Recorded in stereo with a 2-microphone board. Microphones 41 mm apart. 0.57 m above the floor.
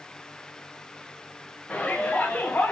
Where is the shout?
25° left (ahead or behind), 4.5 m; by 2.7 s 40° left (ahead or behind), 3.5 m.